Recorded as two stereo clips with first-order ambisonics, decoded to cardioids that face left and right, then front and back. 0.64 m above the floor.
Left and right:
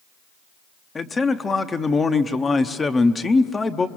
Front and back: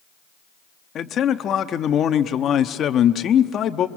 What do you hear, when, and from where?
0.9 s a man speaking: 25° left, 0.8 m